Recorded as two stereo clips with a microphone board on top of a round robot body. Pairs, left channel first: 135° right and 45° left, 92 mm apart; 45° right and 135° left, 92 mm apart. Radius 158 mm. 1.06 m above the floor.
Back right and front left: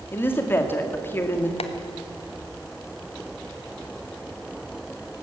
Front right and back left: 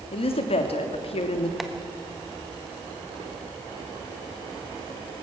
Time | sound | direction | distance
0.1 | a woman speaking | 65° right | 2 m
1.6 | tapping | 135° right | 1.3 m